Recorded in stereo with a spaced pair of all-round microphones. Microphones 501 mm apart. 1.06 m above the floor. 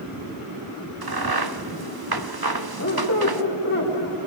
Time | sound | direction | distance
1.0 | a crack | 45° right (ahead or behind) | 0.9 m
2.8 | a squeak | 40° left (ahead or behind) | 2.5 m